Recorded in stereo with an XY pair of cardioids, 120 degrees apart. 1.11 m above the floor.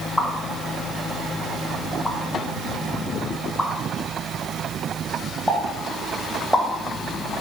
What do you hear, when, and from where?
0.2 s a pop: 5° left, 2 m